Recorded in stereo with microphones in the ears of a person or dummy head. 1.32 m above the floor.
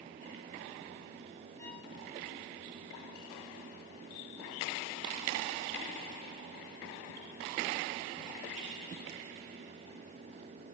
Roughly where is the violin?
Centre.